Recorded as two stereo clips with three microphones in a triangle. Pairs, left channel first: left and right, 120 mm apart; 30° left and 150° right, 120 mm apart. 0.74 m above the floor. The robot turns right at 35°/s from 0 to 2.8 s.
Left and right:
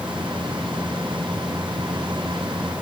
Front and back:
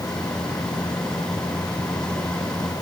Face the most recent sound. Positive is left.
No sound to turn to.